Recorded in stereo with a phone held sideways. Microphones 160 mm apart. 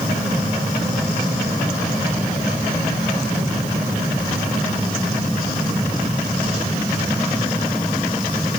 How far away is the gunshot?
No gunshot in this recording.